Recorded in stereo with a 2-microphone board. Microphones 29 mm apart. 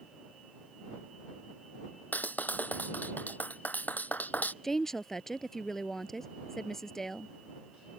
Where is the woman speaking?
15° left (ahead or behind).